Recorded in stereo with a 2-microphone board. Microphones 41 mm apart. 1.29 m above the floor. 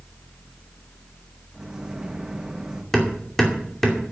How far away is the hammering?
About 2.5 m.